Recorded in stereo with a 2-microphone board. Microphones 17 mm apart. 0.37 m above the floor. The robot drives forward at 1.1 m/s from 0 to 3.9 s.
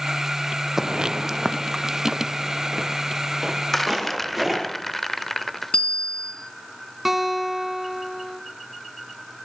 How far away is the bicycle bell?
About 3 m.